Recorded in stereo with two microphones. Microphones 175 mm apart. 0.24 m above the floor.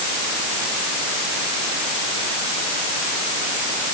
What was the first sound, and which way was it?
Only background noise.